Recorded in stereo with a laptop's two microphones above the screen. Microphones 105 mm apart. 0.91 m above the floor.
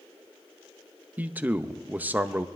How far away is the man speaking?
About 0.7 m.